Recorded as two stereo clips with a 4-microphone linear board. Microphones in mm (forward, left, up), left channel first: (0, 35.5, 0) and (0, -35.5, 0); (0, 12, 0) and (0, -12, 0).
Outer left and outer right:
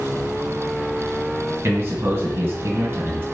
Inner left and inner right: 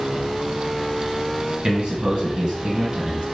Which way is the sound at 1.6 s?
35° right (ahead or behind).